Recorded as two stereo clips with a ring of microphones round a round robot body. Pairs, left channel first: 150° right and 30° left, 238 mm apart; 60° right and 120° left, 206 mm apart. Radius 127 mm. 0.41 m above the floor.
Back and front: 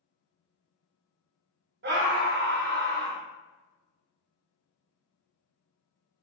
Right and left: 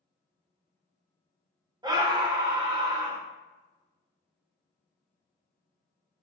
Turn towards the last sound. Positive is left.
turn(degrees=55)